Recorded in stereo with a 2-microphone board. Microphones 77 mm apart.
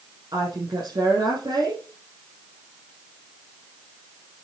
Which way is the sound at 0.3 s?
60° right (ahead or behind).